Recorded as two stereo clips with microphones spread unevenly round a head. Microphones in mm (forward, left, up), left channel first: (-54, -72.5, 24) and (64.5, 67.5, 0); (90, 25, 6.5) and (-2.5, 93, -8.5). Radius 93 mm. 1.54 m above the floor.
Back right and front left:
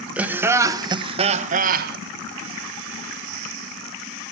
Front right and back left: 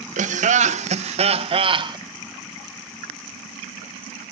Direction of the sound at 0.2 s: 135° left.